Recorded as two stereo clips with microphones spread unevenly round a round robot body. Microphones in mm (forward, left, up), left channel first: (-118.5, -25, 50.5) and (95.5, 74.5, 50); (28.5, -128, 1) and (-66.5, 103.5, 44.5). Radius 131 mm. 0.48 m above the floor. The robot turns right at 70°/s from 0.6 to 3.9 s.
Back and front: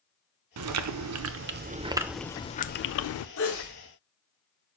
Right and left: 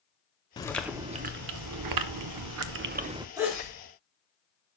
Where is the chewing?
5° left, 0.6 m; by 3.3 s 170° right, 0.6 m.